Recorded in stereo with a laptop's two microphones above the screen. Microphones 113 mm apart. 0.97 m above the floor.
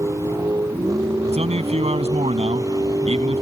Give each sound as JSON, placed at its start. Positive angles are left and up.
{"t": 0.0, "sound": "a vehicle", "side_deg": -30}
{"t": 1.3, "sound": "a man speaking", "side_deg": -70}